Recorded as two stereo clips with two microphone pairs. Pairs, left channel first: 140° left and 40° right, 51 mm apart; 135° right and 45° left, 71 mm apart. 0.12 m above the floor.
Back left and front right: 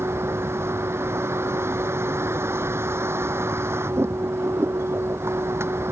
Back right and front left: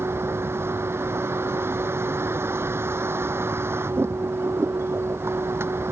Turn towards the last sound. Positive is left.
turn(degrees=-10)